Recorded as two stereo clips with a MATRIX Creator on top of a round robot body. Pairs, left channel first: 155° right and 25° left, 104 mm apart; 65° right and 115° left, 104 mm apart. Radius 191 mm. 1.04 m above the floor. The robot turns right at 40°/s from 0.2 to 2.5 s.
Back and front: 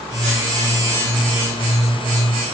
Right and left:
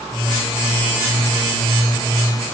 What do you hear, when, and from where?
Only background noise.